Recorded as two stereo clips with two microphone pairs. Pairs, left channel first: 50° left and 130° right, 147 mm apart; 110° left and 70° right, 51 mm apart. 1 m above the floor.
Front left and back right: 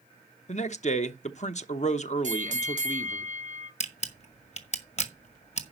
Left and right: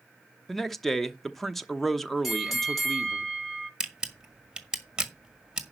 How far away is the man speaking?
About 1.0 m.